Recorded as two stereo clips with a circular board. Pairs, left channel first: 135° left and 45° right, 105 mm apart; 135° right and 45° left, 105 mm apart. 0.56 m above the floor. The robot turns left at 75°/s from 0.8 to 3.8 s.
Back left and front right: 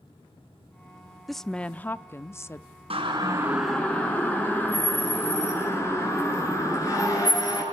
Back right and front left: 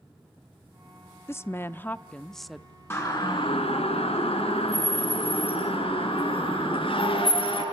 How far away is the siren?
About 6 m.